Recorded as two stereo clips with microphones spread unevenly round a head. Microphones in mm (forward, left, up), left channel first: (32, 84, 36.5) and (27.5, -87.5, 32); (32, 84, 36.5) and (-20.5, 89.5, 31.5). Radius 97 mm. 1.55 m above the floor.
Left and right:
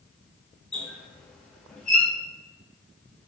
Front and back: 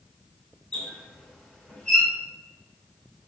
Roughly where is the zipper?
No zipper in this recording.